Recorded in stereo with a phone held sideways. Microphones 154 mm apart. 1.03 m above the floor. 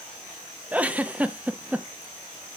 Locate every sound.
0.7 s a giggle: 10° right (ahead or behind), 0.7 m